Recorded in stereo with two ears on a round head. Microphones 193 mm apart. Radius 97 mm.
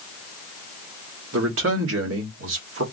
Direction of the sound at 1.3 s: 65° right (ahead or behind).